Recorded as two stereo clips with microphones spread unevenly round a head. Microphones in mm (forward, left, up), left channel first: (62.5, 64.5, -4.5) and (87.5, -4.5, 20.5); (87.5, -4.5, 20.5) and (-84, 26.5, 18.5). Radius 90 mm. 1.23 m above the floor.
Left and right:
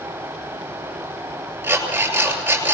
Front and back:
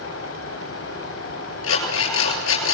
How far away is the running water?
About 5.5 m.